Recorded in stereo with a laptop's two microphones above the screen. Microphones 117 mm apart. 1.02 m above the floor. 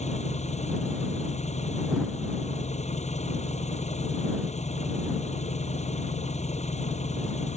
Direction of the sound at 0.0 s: 85° left.